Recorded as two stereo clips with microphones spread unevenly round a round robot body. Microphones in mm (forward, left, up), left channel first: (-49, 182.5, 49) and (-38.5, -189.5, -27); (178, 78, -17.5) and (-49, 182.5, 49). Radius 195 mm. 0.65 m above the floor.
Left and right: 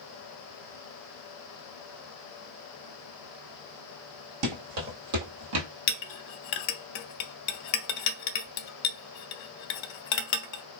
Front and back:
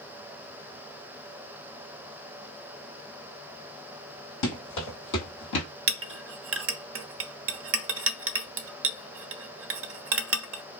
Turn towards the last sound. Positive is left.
turn(degrees=105)